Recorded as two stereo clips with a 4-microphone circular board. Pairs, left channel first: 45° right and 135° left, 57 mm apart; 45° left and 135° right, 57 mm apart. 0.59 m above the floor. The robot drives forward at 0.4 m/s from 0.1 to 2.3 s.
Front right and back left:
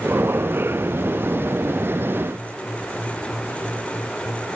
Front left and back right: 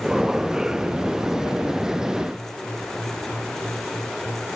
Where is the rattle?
No rattle in this recording.